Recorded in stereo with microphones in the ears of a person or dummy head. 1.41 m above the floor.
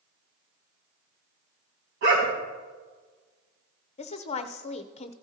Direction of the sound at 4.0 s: 35° left (ahead or behind).